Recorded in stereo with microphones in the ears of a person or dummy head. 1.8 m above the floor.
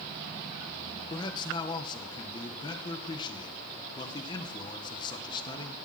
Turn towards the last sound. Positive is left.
turn(degrees=25)  # may be behind; listen again after turning